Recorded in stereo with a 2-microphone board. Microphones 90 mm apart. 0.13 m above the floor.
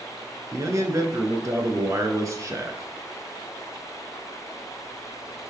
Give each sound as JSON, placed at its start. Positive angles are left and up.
{"t": 0.5, "sound": "a man speaking", "side_deg": -35, "distance_m": 1.4}